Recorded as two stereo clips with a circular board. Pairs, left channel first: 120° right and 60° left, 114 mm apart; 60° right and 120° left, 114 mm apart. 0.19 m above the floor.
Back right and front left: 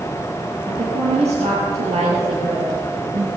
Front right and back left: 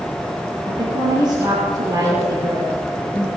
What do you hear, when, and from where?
0.7 s a woman speaking: 75° left, 5 m; by 3.3 s 55° left, 6 m